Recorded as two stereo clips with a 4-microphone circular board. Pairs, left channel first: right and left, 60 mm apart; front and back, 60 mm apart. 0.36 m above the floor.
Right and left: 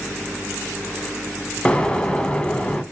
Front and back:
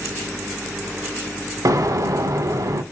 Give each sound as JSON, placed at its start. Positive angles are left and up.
{"t": 1.6, "sound": "an explosion", "azimuth_deg": -165, "distance_m": 0.5}